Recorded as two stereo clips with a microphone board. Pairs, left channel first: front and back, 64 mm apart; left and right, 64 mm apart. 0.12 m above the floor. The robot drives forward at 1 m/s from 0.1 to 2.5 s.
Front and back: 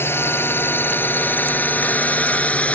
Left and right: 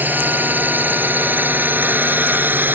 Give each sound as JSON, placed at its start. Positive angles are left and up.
{"t": 0.0, "sound": "a drone", "azimuth_deg": -40}